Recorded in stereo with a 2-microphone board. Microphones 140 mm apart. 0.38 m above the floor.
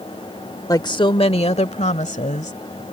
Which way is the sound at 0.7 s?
25° left (ahead or behind).